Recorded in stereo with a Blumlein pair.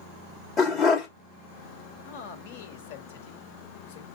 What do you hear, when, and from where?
0.6 s a dog barking: 20° left, 1.9 m
2.0 s a man speaking: 50° left, 1.8 m